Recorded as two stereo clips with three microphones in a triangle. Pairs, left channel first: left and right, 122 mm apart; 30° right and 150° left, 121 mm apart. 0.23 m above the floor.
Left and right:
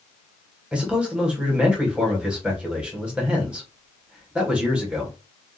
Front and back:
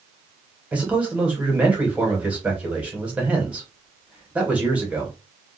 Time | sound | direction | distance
0.7 | a man speaking | 155° right | 1.2 m